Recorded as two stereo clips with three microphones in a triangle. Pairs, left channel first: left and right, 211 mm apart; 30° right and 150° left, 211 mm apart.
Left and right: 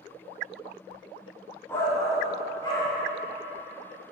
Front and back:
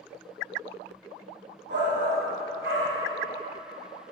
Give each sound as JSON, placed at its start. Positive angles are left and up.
{"t": 1.7, "sound": "a shout", "azimuth_deg": 165, "distance_m": 2.0}